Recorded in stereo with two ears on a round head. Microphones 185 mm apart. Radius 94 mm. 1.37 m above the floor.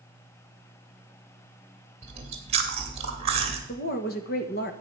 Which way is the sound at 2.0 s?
30° right (ahead or behind).